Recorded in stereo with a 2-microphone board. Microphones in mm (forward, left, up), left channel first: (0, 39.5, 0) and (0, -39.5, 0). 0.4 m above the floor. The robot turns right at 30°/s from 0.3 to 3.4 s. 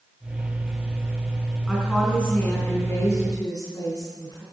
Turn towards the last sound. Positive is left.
turn(degrees=55)